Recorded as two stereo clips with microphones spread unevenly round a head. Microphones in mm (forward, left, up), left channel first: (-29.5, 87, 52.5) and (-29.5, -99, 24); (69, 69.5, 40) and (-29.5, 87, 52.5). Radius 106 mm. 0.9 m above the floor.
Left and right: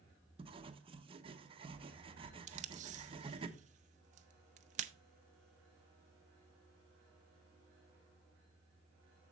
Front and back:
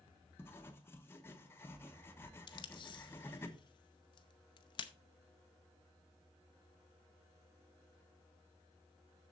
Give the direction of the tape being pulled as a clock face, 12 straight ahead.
2 o'clock.